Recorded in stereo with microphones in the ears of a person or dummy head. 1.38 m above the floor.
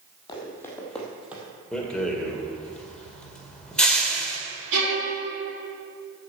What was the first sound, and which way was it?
Running footsteps, 25° left (ahead or behind).